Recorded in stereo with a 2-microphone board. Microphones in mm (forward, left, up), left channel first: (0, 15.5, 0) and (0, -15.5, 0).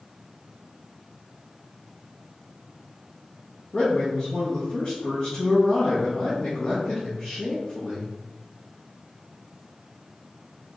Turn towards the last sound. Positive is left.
turn(degrees=40)  # may be behind; listen again after turning